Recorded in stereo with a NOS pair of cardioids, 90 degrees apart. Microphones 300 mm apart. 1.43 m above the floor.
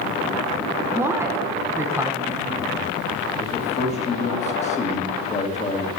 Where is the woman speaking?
10° right, 1.1 m.